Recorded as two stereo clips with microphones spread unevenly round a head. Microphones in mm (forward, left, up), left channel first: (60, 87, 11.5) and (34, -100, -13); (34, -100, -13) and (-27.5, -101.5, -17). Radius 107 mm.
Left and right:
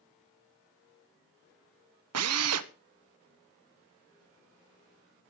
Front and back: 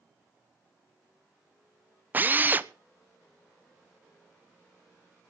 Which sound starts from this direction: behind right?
A drill, at 2.1 s.